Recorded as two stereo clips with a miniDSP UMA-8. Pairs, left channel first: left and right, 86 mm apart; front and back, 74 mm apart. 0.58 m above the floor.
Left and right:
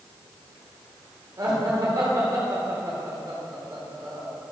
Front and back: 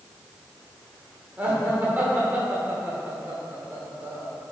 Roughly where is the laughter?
Behind right.